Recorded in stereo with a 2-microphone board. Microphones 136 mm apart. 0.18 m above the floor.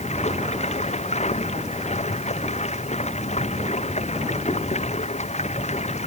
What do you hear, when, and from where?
0.0 s running water: 55° left (ahead or behind)